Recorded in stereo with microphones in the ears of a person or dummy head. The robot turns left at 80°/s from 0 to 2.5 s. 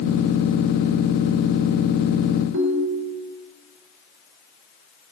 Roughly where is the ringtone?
Right.